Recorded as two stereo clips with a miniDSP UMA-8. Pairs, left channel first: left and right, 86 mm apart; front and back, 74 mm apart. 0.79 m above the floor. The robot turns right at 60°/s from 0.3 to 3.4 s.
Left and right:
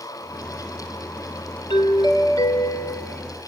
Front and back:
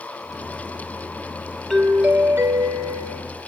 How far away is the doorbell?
About 3 m.